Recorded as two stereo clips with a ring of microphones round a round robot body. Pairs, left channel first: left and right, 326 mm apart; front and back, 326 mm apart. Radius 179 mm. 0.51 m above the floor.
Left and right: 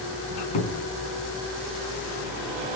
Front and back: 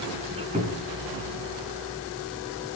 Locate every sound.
0.3 s a squeak: 105° left, 3.5 m